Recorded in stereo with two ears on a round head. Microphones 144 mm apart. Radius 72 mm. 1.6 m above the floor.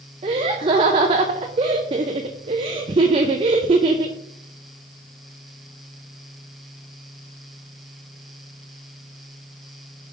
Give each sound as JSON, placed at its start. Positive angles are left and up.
{"t": 0.2, "sound": "laughter", "side_deg": -30, "distance_m": 0.5}